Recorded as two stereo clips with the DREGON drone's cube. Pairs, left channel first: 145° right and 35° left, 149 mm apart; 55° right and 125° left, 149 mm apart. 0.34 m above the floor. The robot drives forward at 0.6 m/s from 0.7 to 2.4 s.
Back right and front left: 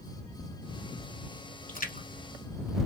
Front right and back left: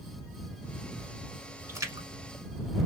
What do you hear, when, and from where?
1.7 s a splash: 165° right, 0.9 m; by 2.1 s 170° right, 1.2 m